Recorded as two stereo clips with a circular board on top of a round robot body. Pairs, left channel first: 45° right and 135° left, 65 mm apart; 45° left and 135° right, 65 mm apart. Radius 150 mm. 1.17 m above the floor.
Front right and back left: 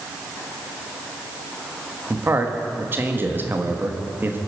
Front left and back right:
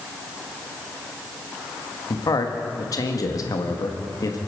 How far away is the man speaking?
About 1.6 m.